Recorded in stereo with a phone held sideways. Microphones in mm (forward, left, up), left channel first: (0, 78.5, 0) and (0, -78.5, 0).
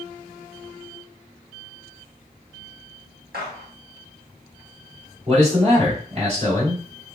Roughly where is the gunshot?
Right.